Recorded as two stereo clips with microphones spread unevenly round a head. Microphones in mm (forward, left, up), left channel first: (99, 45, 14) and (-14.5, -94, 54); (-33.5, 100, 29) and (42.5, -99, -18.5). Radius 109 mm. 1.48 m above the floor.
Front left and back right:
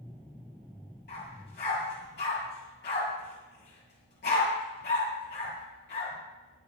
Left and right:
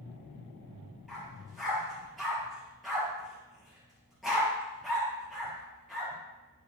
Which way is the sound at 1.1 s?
25° left.